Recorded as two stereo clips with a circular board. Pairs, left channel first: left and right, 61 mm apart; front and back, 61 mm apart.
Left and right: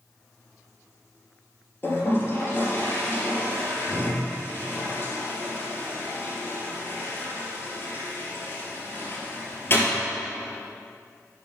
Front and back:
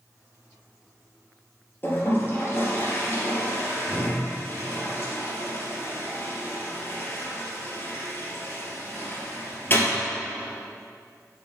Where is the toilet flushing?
50° left, 3 m.